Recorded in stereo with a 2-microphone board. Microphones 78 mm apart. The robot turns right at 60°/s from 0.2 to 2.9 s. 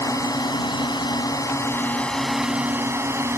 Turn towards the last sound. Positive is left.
turn(degrees=-145)